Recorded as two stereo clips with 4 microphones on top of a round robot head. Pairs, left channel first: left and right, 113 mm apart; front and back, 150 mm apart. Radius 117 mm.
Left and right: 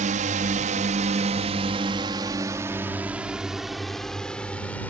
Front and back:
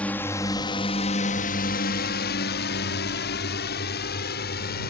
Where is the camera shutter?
No camera shutter in this recording.